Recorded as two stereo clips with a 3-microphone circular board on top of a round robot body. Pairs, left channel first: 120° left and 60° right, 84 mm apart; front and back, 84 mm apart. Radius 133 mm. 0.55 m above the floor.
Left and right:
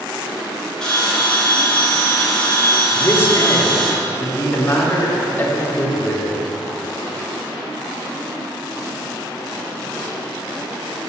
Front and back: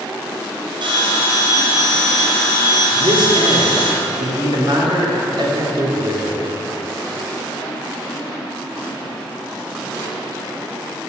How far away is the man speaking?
About 2 m.